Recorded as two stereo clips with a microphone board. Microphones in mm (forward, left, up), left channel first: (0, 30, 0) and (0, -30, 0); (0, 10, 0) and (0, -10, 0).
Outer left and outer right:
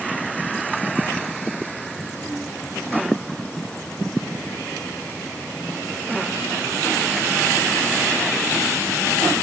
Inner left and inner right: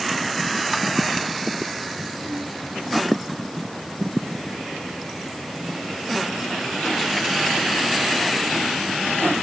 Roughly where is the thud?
I don't hear a thud.